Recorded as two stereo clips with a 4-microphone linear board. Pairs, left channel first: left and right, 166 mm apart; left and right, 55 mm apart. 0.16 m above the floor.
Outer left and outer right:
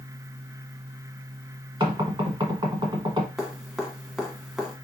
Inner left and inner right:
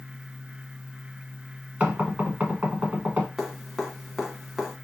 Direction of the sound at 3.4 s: Centre (ahead or behind).